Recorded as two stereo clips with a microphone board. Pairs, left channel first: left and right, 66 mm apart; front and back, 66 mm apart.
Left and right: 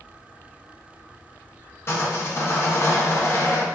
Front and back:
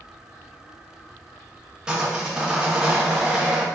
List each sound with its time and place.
1.9 s sawing: 105° left, 0.6 m